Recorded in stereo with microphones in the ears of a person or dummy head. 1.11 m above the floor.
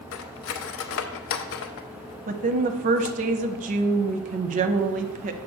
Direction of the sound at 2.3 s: 40° right (ahead or behind).